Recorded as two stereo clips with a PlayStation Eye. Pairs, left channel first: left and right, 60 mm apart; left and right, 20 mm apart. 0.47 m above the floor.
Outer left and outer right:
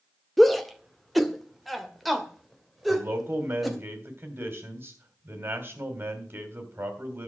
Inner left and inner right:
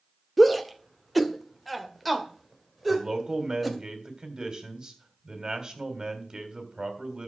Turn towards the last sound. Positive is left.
turn(degrees=-40)  # may be behind; listen again after turning